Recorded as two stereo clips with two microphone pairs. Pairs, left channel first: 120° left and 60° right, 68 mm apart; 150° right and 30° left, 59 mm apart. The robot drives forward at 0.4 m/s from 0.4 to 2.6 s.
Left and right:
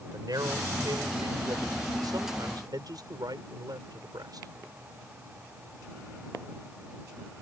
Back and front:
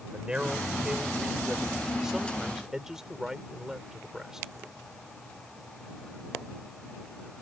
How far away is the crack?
No crack in this recording.